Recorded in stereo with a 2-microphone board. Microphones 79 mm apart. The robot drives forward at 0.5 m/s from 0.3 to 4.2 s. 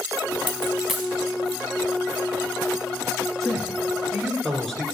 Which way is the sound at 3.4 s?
5° left (ahead or behind).